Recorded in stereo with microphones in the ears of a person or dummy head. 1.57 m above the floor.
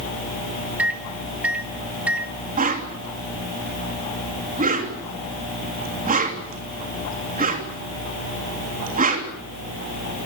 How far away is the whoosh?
About 3 m.